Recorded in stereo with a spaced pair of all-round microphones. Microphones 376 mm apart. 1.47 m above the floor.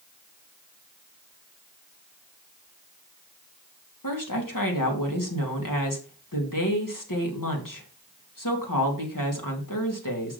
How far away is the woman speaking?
About 2.5 m.